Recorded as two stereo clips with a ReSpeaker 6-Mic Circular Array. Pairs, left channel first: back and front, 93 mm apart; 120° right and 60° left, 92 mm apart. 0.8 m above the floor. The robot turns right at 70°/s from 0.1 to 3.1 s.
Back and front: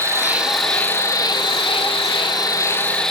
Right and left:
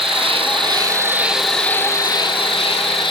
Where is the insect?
55° left, 0.8 m; by 3.1 s 95° right, 0.8 m.